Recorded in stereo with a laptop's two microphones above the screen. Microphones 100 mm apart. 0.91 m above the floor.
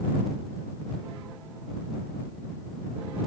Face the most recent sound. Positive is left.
No sound to turn to.